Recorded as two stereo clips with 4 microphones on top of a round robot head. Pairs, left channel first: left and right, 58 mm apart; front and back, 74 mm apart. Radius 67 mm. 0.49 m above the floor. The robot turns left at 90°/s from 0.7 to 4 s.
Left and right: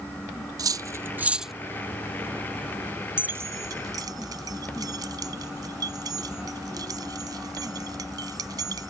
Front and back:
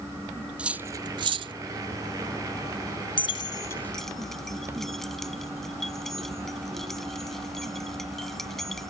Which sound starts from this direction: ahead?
Keys jangling, at 3.2 s.